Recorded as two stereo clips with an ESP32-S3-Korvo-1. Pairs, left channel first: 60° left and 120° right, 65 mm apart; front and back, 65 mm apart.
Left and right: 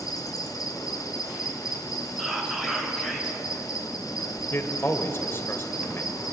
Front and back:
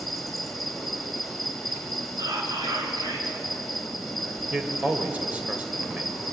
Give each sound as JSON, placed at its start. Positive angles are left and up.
{"t": 0.0, "sound": "an insect", "azimuth_deg": 90, "distance_m": 4.0}
{"t": 2.2, "sound": "whispering", "azimuth_deg": 160, "distance_m": 7.0}
{"t": 4.5, "sound": "a man speaking", "azimuth_deg": 115, "distance_m": 3.0}